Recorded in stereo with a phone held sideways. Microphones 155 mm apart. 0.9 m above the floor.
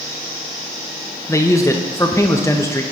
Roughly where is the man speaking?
Centre.